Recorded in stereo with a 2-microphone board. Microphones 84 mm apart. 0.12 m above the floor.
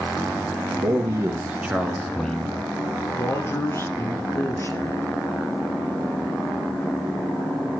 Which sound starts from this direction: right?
A man speaking, at 0.8 s.